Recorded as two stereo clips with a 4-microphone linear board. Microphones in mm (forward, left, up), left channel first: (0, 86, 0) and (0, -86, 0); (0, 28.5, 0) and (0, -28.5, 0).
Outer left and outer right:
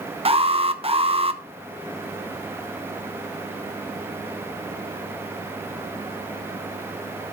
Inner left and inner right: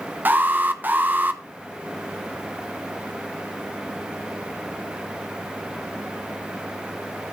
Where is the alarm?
35° right (ahead or behind), 0.9 m.